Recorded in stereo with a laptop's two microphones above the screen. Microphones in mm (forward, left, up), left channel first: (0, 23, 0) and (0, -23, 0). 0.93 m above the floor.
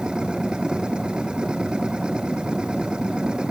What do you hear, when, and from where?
0.0 s a machine running: 15° right (ahead or behind)